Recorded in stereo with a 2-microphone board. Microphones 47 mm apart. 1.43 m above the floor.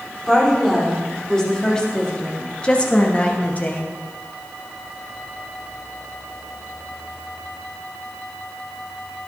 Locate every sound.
0.3 s a woman speaking: 10° left (ahead or behind), 4.5 m; by 3.9 s 40° left (ahead or behind), 1.7 m